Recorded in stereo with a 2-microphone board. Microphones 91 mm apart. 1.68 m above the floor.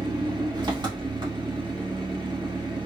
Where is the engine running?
50° right (ahead or behind), 1.4 m.